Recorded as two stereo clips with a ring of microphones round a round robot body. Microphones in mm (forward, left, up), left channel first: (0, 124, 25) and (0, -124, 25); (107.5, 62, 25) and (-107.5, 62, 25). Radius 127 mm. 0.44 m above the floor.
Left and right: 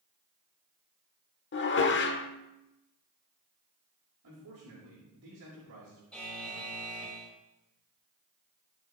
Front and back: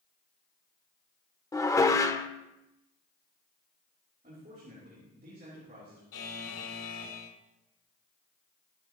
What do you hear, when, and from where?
1.5 s dishes clattering: 70° left, 0.9 m
4.2 s a man speaking: 120° right, 6.5 m
6.1 s a buzzer: 5° left, 6.5 m